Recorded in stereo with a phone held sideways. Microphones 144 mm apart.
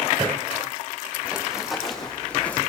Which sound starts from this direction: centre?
Running footsteps, at 1.2 s.